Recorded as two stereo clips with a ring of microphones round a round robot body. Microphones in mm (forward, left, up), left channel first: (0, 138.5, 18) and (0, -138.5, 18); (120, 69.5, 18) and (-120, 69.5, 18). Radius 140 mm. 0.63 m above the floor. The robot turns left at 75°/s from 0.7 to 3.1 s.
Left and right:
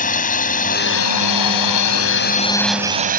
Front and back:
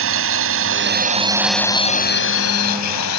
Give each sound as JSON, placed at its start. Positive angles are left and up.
{"t": 0.0, "sound": "a drone", "azimuth_deg": 150}